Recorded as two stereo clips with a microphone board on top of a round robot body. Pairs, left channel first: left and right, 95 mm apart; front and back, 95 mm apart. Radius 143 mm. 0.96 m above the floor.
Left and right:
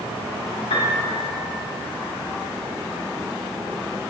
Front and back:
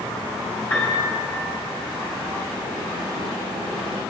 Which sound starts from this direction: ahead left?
A piano, at 0.7 s.